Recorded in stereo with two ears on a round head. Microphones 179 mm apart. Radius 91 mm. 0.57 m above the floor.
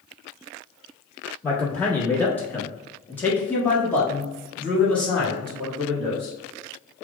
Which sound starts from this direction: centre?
A man speaking, at 1.4 s.